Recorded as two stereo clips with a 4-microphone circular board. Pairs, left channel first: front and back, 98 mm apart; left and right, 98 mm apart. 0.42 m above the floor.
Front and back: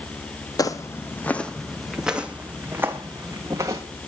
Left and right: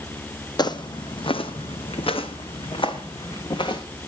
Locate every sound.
0.6 s footsteps: 50° left, 1.1 m; by 3.8 s 125° left, 2 m